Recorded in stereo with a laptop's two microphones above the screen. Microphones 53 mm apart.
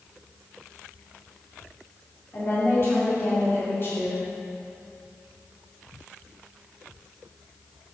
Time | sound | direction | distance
2.3 | a woman speaking | 50° left (ahead or behind) | 2.5 m